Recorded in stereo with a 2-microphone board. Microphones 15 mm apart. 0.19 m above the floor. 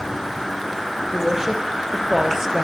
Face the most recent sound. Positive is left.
turn(degrees=-30)  # may be behind; listen again after turning